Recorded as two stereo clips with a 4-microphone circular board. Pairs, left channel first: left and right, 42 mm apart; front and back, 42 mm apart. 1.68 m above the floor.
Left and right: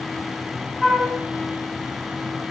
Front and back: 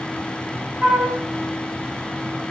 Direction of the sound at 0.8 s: 165° left.